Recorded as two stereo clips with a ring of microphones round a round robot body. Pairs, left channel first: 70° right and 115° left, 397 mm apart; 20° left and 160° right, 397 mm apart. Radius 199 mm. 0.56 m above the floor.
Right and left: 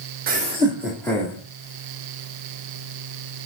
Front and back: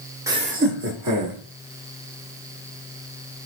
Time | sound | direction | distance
0.3 | laughter | 130° left | 1.0 m